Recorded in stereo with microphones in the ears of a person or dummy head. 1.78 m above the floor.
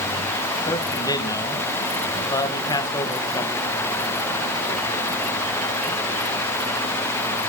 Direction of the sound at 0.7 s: 15° left (ahead or behind).